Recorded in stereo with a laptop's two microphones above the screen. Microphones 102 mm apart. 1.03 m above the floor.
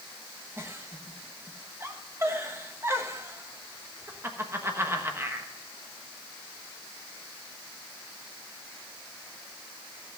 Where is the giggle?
25° right (ahead or behind), 1.3 m.